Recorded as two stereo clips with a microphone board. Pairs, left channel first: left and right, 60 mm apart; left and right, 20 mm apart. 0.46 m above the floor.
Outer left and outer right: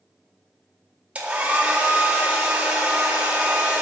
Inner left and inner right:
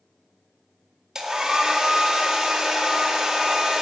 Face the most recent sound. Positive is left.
turn(degrees=-20)  # may be behind; listen again after turning